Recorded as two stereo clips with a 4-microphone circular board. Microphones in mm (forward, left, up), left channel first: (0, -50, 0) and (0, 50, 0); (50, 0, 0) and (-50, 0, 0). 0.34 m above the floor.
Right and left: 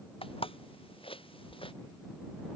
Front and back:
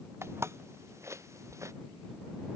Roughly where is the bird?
I don't hear a bird.